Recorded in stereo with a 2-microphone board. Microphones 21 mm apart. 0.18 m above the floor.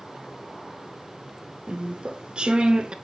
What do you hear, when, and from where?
1.7 s chewing: 60° right (ahead or behind), 0.5 m